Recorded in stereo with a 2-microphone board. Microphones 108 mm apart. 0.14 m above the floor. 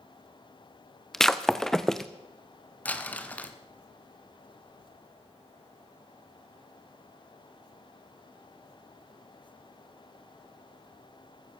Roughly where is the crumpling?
Centre.